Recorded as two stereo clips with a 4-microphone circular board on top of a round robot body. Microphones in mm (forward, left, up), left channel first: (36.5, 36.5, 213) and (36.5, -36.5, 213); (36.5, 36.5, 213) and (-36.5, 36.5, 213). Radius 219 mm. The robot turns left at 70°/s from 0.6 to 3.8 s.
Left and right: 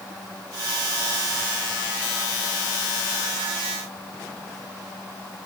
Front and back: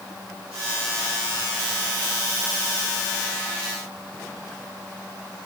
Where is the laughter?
I don't hear laughter.